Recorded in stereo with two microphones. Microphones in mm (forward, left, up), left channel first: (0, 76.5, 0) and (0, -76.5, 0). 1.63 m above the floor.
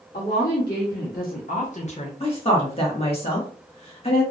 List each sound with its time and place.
0.1 s a woman speaking: 80° left, 1.3 m; by 2.1 s 40° left (ahead or behind), 0.8 m
2.2 s a woman speaking: 40° left (ahead or behind), 1.3 m